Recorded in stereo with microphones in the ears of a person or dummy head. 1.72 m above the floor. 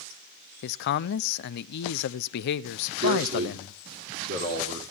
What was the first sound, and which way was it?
A man speaking, 50° left (ahead or behind).